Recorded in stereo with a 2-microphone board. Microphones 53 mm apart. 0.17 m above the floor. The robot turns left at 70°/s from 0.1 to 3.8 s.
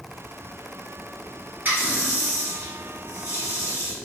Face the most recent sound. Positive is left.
turn(degrees=75)